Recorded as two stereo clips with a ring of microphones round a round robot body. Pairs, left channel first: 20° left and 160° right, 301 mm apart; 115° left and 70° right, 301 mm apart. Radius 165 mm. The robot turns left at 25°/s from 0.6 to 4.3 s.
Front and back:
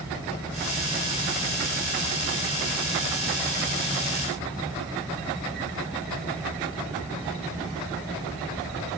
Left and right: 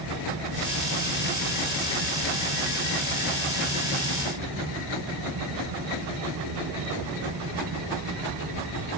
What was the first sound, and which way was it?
Only background noise.